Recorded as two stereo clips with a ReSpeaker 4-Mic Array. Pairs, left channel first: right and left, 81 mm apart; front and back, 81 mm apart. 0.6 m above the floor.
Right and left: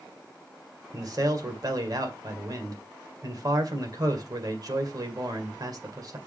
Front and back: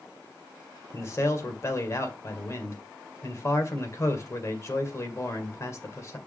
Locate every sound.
0.9 s a man speaking: 55° left, 2.0 m